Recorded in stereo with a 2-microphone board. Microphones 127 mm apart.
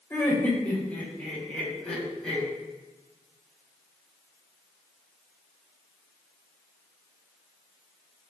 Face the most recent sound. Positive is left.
turn(degrees=5)  # may be behind; listen again after turning